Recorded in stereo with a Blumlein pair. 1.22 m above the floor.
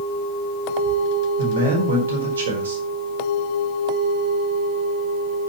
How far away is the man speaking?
About 4.5 m.